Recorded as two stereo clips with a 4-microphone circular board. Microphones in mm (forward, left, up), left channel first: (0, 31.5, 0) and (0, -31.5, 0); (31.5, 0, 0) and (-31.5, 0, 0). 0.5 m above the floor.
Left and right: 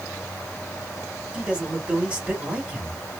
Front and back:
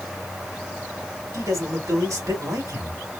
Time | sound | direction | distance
1.3 | a man speaking | 160° right | 2 m